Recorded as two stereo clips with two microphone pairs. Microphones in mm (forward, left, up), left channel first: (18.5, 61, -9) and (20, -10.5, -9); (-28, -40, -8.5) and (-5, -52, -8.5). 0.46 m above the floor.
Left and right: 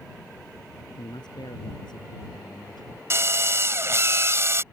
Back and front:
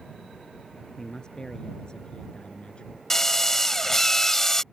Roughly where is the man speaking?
Left.